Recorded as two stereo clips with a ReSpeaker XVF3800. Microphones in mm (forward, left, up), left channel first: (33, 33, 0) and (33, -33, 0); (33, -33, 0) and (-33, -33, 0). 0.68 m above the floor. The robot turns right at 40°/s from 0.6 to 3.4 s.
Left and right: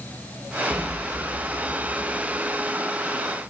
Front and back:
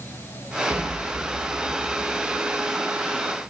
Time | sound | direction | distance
0.7 | an explosion | 170° left | 4 m